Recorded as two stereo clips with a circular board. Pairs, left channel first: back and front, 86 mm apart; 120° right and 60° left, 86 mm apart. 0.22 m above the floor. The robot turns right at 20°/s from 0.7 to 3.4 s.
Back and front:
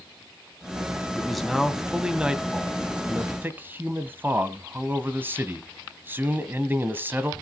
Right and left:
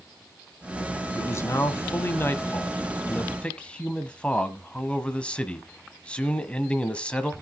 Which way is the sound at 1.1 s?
95° right.